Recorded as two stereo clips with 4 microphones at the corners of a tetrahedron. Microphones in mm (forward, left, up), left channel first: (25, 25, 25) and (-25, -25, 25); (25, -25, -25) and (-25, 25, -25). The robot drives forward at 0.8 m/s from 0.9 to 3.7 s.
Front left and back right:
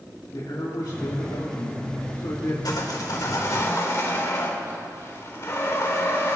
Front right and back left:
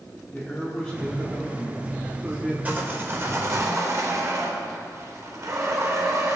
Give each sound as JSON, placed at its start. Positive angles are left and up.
{"t": 0.3, "sound": "a man speaking", "azimuth_deg": 40, "distance_m": 2.5}
{"t": 2.6, "sound": "sawing", "azimuth_deg": 70, "distance_m": 2.0}